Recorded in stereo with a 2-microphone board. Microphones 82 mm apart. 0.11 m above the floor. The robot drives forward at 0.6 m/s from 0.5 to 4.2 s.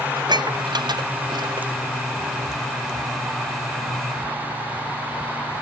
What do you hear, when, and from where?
0.2 s dishes clattering: 60° right (ahead or behind)